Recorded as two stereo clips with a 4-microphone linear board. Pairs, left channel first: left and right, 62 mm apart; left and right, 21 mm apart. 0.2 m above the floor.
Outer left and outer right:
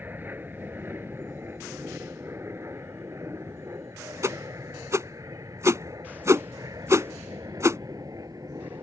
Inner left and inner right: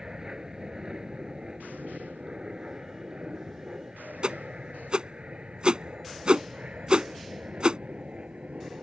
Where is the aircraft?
30° right (ahead or behind); by 8.8 s 70° right (ahead or behind).